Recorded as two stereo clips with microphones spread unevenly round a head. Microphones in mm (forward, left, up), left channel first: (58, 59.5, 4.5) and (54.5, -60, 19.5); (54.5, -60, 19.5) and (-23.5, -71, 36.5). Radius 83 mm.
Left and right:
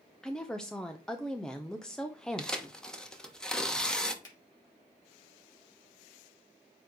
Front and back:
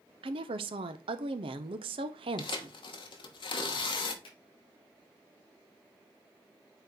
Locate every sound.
0.2 s a woman speaking: 175° left, 0.5 m
2.4 s tearing paper: straight ahead, 1.1 m
4.2 s a finger snap: 30° left, 4 m